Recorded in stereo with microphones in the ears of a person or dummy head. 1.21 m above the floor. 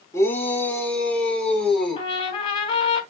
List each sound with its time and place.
0.1 s a shout: 15° left (ahead or behind), 3.5 m; by 2.1 s 5° left (ahead or behind), 5 m
2.0 s a trumpet: 30° left (ahead or behind), 2.5 m